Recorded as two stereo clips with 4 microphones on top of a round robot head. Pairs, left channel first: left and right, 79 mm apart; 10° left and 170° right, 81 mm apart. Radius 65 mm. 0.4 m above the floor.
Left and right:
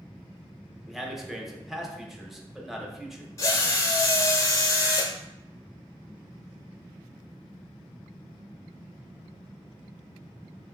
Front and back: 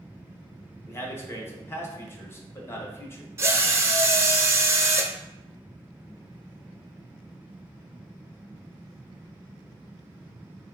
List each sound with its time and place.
0.9 s a man speaking: 5° right, 0.9 m
3.4 s a drill: 135° left, 0.7 m